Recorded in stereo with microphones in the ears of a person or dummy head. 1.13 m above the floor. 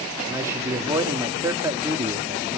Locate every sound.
0.3 s a man speaking: 15° right (ahead or behind), 1.9 m